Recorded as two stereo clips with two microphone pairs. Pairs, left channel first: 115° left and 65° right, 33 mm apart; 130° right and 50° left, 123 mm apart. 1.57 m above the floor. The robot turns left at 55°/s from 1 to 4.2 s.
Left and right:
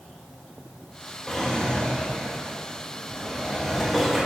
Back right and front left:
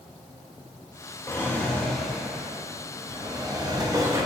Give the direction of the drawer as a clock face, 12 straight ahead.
6 o'clock.